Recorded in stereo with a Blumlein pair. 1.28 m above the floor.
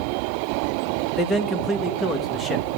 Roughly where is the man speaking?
Ahead.